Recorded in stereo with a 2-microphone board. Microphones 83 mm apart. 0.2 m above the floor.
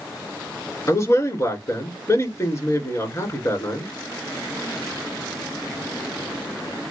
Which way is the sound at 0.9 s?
35° left (ahead or behind).